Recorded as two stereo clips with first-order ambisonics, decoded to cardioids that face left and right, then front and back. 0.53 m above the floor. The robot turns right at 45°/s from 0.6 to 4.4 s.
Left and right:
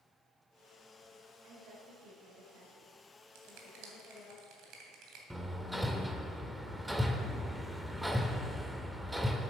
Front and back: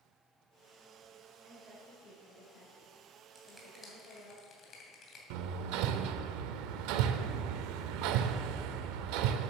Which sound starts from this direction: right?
A finger snap, at 3.4 s.